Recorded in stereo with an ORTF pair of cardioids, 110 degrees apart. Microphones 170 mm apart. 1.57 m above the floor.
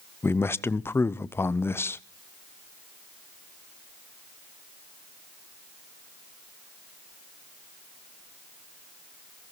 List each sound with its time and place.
0.2 s a man speaking: 15° left, 0.7 m